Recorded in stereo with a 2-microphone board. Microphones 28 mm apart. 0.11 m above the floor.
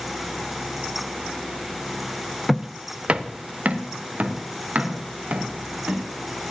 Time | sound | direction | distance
2.5 | footsteps | 5° right (ahead or behind) | 0.7 m